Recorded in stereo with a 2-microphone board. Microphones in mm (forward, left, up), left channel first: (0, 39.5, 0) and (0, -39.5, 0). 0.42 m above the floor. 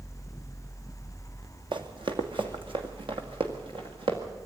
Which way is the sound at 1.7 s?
70° right (ahead or behind).